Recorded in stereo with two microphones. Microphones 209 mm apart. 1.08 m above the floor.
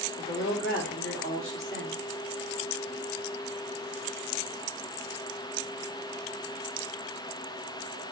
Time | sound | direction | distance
0.2 | a woman speaking | 75° left (ahead or behind) | 3 m